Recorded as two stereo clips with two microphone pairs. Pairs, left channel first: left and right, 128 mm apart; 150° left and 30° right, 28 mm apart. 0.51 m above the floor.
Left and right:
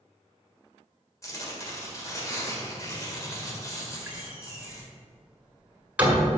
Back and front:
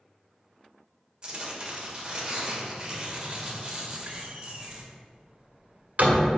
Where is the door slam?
15° right, 1.6 m.